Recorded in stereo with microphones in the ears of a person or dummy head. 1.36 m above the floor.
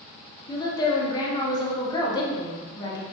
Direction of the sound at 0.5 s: 20° left (ahead or behind).